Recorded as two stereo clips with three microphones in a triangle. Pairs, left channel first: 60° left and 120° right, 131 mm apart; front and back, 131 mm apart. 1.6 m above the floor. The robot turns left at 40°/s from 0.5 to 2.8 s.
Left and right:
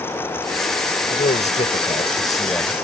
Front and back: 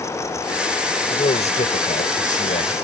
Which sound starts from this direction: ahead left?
A man speaking, at 1.1 s.